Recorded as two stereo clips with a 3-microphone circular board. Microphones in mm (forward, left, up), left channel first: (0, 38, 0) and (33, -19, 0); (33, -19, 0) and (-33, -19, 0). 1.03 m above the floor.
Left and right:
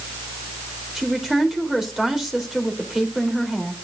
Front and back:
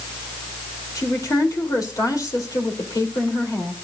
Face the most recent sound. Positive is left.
turn(degrees=20)